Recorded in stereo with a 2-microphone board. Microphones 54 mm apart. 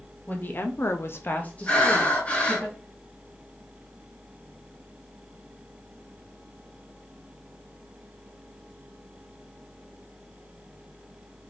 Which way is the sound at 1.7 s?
30° left (ahead or behind).